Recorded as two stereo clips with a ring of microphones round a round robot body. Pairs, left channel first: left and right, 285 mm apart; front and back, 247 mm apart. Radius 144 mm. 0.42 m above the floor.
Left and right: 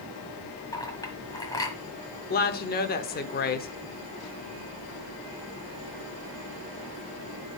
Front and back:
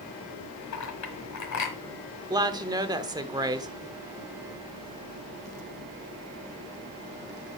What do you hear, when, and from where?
0.7 s a clink: 10° left, 1.4 m
2.3 s a woman speaking: 115° left, 0.8 m